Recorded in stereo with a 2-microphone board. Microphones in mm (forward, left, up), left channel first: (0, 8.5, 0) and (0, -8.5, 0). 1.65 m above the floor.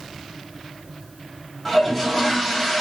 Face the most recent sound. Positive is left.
turn(degrees=15)  # may be behind; listen again after turning